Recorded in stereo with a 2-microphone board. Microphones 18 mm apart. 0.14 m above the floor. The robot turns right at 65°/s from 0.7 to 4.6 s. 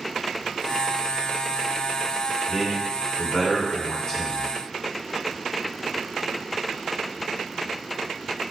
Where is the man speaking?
20° right (ahead or behind), 1.2 m; by 4.5 s 20° left (ahead or behind), 1.2 m.